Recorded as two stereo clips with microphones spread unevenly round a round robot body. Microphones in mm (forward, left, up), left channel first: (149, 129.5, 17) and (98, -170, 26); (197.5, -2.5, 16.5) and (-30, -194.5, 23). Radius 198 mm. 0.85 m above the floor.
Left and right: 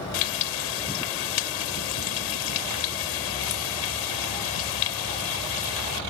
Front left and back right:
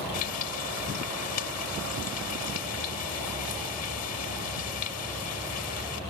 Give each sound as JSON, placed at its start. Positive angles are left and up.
{"t": 0.1, "sound": "frying", "azimuth_deg": 95}